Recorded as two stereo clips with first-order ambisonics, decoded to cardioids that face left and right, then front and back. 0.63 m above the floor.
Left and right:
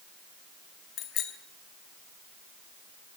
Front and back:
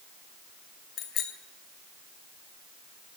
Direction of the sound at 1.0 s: 45° left.